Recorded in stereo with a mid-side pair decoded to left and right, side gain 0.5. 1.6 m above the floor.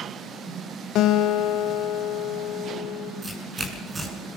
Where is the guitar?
70° left, 1.9 m.